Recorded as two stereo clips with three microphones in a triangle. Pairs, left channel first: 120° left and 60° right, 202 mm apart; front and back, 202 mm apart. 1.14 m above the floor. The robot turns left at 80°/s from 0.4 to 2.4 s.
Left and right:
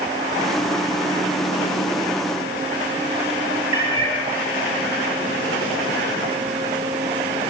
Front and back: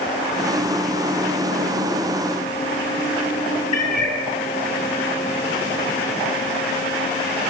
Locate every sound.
3.7 s a cat meowing: 55° left, 5.5 m